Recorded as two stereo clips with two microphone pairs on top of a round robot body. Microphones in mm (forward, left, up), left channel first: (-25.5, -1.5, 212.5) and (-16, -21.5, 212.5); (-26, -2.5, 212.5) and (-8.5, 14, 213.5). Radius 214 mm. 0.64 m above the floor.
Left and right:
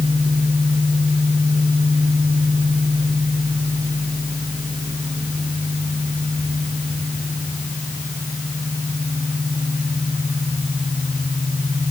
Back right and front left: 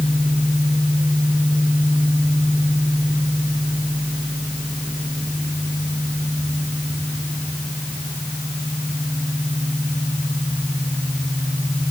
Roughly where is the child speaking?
No child speaking in this recording.